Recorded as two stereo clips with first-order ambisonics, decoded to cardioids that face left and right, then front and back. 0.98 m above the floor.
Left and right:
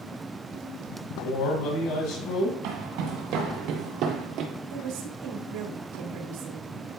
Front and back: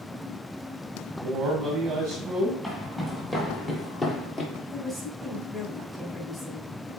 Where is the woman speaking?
75° right, 1.9 m.